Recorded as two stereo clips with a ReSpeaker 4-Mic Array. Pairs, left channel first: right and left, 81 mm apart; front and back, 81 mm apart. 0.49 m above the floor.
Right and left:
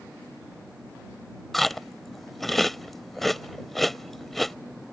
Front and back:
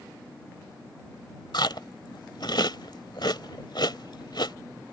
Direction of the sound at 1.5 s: Straight ahead.